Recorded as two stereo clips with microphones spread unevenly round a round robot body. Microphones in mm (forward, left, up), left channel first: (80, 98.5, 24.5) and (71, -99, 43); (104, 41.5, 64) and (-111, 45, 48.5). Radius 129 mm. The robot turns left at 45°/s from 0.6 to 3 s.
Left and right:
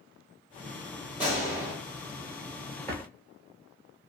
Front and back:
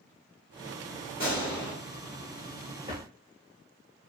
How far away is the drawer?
About 0.6 m.